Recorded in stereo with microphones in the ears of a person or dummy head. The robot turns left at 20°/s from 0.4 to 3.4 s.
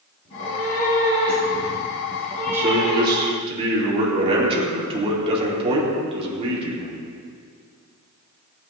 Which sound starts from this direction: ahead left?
A cat meowing, at 0.2 s.